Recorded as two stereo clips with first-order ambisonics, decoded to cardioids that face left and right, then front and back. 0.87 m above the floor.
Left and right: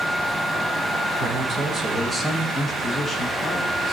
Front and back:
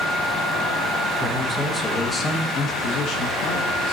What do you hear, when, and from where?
1.2 s a man speaking: 125° right, 0.9 m; by 3.9 s 10° left, 1.4 m